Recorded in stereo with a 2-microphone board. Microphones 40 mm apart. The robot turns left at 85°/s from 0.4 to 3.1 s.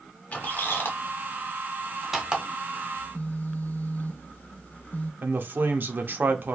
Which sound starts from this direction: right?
A man speaking, at 5.2 s.